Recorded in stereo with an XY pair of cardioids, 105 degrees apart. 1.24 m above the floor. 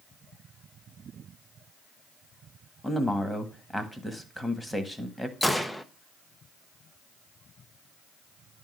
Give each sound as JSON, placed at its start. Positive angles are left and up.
{"t": 2.8, "sound": "a man speaking", "azimuth_deg": 10, "distance_m": 1.6}
{"t": 5.4, "sound": "a gunshot", "azimuth_deg": 5, "distance_m": 0.8}